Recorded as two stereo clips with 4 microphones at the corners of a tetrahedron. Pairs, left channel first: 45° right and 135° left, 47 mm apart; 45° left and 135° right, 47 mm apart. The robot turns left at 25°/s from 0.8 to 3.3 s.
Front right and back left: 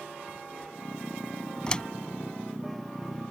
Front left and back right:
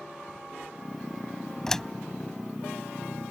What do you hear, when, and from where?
1.7 s a door slam: 15° right; by 1.9 s 20° right